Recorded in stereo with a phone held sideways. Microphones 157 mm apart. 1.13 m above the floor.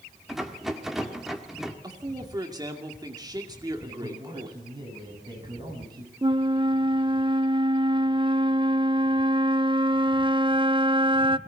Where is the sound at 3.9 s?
30° right (ahead or behind), 8.5 m.